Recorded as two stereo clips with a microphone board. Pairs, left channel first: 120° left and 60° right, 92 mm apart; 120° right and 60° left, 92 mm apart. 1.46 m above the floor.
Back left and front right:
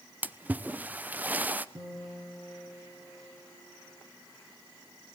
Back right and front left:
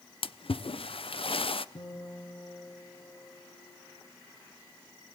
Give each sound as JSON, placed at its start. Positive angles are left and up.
{"t": 0.2, "sound": "a splash", "azimuth_deg": -130, "distance_m": 0.6}
{"t": 1.8, "sound": "a guitar", "azimuth_deg": -100, "distance_m": 4.0}